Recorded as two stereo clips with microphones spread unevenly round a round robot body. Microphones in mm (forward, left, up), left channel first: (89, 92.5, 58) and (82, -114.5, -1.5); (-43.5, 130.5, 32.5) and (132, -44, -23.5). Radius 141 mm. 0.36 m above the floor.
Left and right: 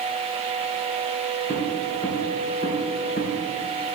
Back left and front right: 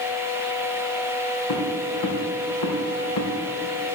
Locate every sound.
1.5 s footsteps: 165° left, 3.5 m; by 3.3 s 145° left, 2.5 m